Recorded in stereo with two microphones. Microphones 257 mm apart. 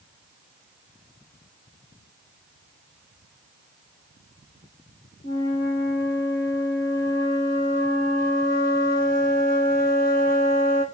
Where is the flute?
35° left (ahead or behind), 2 m.